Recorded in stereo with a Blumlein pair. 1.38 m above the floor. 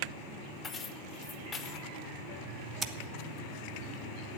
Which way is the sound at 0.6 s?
15° left.